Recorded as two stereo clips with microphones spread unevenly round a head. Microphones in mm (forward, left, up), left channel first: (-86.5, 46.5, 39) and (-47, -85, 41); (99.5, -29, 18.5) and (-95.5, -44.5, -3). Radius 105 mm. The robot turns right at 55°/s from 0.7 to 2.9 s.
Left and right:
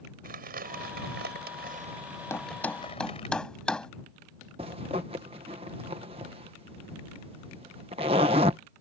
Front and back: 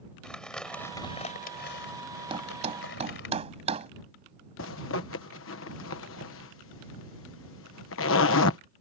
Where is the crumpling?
80° right; by 3.3 s 40° left.